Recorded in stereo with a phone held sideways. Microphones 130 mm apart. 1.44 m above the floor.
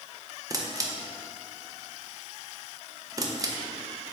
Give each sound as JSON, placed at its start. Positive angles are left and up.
{"t": 0.5, "sound": "a camera shutter", "side_deg": -25, "distance_m": 0.7}